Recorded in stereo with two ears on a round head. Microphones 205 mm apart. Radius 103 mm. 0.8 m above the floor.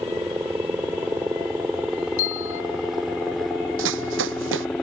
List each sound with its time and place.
0.0 s a helicopter: 10° right (ahead or behind); by 4.8 s 5° left (ahead or behind)
2.2 s a bell: 60° left (ahead or behind)
3.8 s running footsteps: 60° right (ahead or behind)